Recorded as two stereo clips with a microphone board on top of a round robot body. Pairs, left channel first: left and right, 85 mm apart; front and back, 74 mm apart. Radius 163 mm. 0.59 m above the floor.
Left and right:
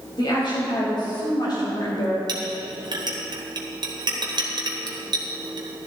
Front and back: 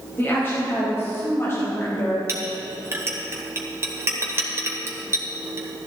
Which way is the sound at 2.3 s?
120° right.